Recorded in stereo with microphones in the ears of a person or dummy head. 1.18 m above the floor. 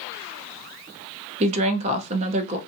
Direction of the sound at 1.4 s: 35° right (ahead or behind).